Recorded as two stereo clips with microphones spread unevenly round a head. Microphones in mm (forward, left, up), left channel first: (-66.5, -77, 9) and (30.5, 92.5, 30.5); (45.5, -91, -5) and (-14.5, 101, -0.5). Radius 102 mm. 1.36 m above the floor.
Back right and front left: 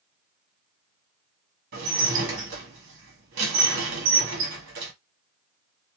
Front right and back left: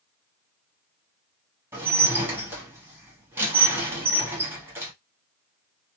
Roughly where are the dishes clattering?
Ahead left.